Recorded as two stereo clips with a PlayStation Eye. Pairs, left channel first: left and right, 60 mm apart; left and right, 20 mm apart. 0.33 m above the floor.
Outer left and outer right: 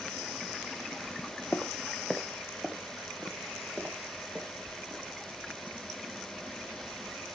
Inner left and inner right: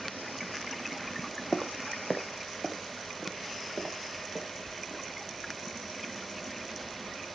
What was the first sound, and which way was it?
Footsteps, 35° left (ahead or behind).